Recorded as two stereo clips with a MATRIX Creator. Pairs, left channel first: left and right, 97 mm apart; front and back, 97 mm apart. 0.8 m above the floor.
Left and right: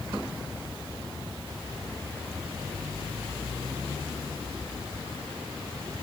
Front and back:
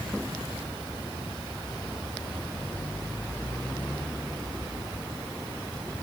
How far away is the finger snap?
I don't hear a finger snap.